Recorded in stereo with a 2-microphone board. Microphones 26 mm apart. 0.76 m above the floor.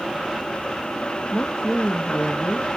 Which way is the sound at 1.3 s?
40° left (ahead or behind).